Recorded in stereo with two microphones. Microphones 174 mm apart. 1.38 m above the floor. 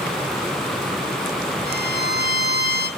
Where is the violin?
70° left (ahead or behind), 1.1 m.